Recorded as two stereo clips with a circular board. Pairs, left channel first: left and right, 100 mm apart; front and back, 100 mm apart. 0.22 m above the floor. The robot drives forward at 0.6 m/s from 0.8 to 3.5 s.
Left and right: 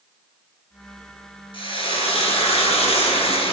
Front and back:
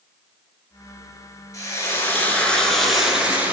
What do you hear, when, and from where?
1.5 s frying: 60° left, 1.6 m; by 3.5 s 105° left, 1.4 m